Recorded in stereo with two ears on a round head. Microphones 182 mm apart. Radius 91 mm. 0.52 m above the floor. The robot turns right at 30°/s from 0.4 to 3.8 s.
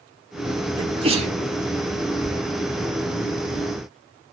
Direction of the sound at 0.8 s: 25° right (ahead or behind).